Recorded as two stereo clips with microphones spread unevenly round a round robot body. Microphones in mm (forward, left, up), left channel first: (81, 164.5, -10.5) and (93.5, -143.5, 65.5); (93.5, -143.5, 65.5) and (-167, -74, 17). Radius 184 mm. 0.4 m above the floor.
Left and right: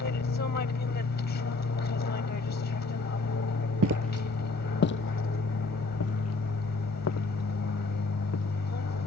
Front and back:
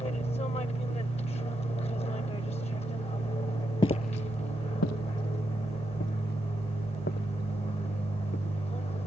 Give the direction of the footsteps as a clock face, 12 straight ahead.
3 o'clock.